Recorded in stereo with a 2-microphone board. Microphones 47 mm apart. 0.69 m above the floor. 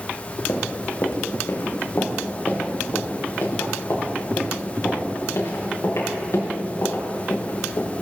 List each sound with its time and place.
0.5 s running footsteps: 75° left (ahead or behind), 2.5 m; by 7.9 s 70° left (ahead or behind), 6 m